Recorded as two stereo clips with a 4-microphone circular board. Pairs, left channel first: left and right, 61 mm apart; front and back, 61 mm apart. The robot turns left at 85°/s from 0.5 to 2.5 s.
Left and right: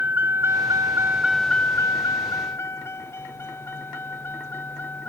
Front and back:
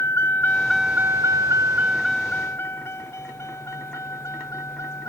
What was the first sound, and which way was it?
A vehicle, 30° right.